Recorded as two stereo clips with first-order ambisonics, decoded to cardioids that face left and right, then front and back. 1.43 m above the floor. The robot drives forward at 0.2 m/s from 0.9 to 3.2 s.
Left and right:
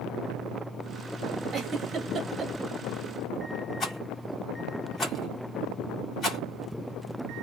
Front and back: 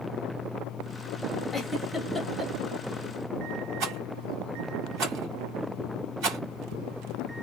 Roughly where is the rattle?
Behind left.